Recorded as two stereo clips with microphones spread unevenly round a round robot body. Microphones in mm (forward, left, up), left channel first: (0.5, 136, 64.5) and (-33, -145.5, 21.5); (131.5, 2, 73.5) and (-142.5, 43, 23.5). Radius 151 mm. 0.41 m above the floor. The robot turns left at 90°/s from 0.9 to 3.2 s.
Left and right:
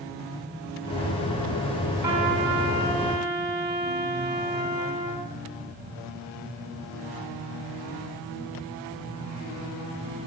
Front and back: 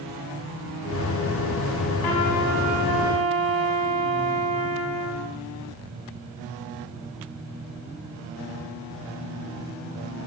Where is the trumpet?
10° right, 4 m; by 5.3 s 115° right, 4 m.